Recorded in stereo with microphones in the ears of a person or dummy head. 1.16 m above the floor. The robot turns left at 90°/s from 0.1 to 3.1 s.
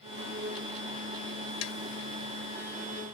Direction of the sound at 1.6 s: 85° left.